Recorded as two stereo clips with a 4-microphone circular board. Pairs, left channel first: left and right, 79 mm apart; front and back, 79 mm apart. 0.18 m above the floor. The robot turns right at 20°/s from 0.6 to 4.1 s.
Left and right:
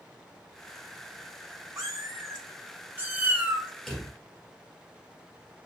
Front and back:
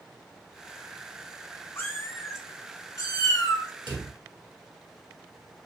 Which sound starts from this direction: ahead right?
A cat meowing, at 1.8 s.